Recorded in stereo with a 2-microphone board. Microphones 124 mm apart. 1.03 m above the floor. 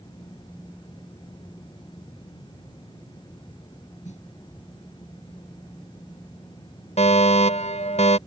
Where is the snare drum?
75° left (ahead or behind).